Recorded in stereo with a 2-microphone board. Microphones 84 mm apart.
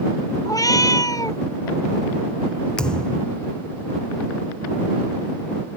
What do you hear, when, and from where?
0.5 s a cat meowing: 45° left (ahead or behind)
2.8 s a thud: 10° left (ahead or behind)